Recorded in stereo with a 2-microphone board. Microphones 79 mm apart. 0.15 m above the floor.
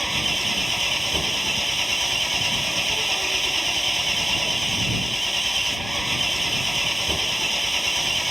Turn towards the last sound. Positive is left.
turn(degrees=0)  # may be behind; listen again after turning